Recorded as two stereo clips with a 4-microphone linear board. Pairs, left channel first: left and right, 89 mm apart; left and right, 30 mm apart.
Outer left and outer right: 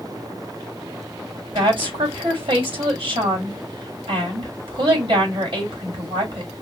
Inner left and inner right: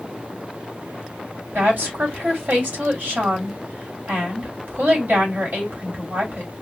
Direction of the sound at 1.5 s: 65° right (ahead or behind).